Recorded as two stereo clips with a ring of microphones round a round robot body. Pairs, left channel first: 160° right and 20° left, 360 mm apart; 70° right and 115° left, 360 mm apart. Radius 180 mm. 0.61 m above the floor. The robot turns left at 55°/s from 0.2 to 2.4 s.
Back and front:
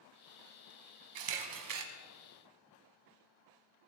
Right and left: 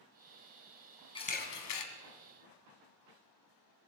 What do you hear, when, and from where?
1.1 s a camera shutter: 10° left, 1.4 m; by 1.9 s 30° right, 1.4 m